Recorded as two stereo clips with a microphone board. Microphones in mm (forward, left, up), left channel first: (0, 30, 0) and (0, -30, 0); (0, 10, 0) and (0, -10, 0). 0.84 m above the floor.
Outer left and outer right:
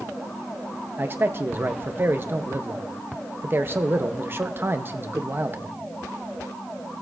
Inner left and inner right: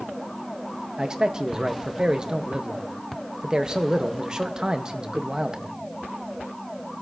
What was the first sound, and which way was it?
A man speaking, 40° right (ahead or behind).